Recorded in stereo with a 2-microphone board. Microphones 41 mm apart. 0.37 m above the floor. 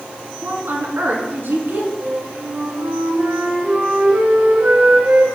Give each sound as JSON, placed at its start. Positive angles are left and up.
{"t": 0.4, "sound": "a woman speaking", "side_deg": -70, "distance_m": 3.5}
{"t": 2.0, "sound": "a flute", "side_deg": -65, "distance_m": 3.0}